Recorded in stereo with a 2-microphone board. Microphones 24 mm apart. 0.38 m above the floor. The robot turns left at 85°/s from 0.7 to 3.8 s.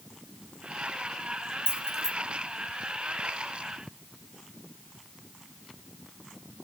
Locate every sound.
1.7 s keys jangling: 45° right (ahead or behind), 1.9 m; by 2.1 s 10° right (ahead or behind), 1.9 m